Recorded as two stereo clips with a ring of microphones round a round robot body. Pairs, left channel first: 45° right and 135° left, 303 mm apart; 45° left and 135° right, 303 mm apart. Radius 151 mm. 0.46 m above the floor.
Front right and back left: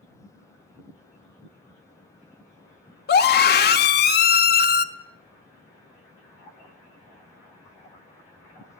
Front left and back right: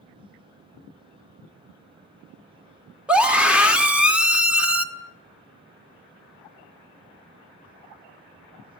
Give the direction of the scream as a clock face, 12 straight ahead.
2 o'clock.